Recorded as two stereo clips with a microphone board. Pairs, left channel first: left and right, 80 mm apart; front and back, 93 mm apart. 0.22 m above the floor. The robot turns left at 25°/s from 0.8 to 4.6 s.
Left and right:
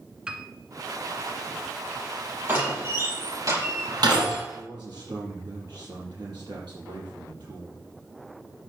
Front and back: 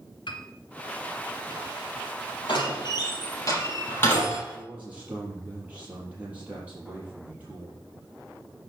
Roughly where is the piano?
Ahead.